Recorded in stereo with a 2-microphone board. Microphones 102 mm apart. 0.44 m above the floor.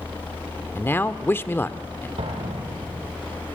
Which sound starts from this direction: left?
A man speaking, at 0.8 s.